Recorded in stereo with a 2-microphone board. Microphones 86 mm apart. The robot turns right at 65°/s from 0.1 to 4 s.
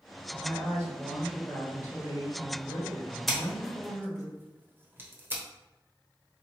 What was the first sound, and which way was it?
A woman speaking, 55° right.